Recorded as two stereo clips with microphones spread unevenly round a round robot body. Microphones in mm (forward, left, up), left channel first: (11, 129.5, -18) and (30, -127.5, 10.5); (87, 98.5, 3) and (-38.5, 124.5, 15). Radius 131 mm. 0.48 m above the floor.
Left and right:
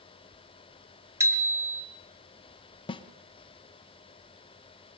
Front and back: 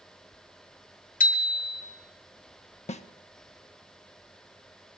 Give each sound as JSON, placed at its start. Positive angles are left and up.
{"t": 1.2, "sound": "a bicycle bell", "azimuth_deg": -5, "distance_m": 2.5}
{"t": 2.9, "sound": "a snare drum", "azimuth_deg": 20, "distance_m": 1.1}